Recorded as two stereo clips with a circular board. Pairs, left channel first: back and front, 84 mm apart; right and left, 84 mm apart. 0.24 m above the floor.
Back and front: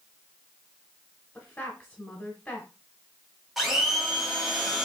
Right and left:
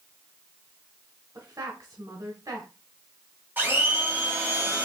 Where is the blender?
85° left, 1.6 m.